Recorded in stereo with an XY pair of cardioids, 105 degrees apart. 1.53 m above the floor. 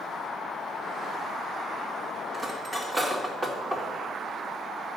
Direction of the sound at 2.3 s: 25° right.